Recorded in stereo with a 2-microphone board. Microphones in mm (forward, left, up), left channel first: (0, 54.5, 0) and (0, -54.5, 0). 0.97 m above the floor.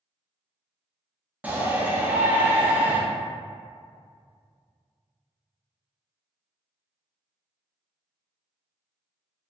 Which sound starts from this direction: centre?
A shout, at 1.4 s.